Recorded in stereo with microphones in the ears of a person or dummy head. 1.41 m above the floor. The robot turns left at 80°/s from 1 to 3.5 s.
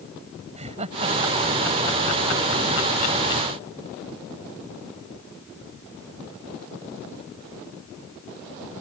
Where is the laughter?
45° right (ahead or behind); by 3.4 s 30° left (ahead or behind).